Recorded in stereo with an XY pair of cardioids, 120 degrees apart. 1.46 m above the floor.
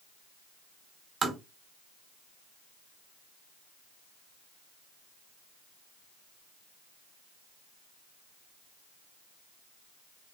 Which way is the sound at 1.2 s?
30° right.